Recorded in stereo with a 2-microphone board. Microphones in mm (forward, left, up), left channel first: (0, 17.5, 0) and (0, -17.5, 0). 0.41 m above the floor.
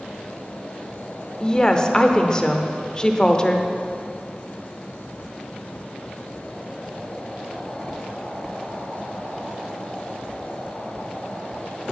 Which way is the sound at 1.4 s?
20° left (ahead or behind).